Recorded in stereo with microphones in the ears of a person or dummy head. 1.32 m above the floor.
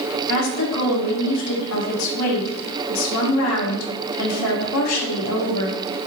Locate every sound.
0.3 s a woman speaking: 85° left, 1.5 m